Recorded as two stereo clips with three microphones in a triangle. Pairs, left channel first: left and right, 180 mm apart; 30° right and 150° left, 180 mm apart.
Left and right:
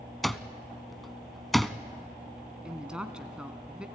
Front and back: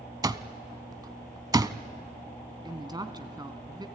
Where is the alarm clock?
Straight behind, 0.6 m.